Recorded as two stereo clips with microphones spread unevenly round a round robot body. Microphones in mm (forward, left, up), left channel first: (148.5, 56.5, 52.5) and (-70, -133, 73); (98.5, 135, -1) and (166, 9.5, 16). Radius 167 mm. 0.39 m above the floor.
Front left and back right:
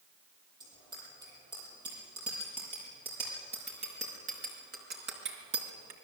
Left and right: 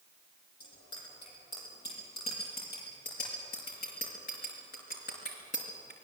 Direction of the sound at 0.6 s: 145° left.